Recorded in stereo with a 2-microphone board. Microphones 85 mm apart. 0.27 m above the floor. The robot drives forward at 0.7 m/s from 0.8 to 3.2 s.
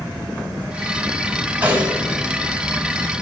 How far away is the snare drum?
About 2 m.